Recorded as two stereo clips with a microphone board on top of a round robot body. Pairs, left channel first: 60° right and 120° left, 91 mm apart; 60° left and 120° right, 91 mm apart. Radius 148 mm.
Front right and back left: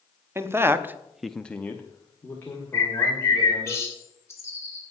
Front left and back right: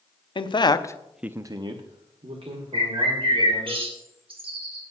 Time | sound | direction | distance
0.3 | a man speaking | 60° left | 1.2 m
2.7 | a bird | 120° right | 2.5 m